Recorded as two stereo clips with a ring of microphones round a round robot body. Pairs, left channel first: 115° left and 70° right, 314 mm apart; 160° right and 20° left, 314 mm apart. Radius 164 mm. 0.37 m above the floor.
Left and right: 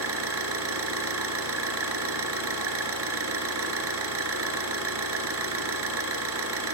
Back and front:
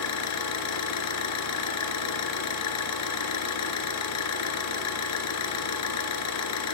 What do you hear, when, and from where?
0.0 s an engine running: 115° right, 3 m